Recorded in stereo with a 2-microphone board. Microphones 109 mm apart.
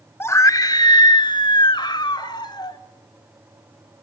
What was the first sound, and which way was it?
A scream, 20° left (ahead or behind).